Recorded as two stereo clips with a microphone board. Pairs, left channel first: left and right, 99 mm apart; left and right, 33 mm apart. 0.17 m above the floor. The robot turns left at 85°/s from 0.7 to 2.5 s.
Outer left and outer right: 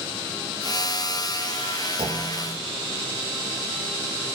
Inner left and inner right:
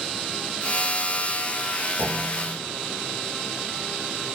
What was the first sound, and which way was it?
A clunk, 105° right.